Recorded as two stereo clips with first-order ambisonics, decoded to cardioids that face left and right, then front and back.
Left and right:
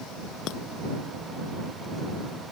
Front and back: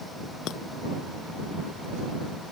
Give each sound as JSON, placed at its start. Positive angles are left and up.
{"t": 0.5, "sound": "breaking glass", "azimuth_deg": 45}